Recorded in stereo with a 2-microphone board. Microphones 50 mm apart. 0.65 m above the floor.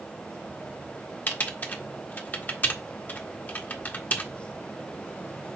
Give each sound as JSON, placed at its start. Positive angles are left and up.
{"t": 1.3, "sound": "typing on a keyboard", "side_deg": 35, "distance_m": 0.9}